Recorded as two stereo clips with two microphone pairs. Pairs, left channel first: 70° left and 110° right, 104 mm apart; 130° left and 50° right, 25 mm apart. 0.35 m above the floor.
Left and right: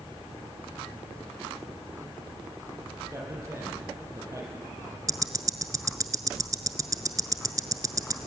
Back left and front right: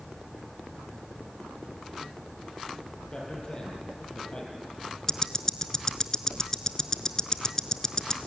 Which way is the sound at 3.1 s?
175° right.